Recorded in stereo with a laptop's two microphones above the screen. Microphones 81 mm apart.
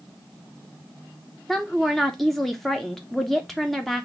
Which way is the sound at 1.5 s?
5° left (ahead or behind).